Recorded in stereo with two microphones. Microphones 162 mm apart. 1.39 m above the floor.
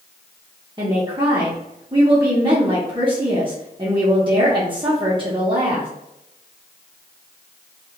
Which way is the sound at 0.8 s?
30° right (ahead or behind).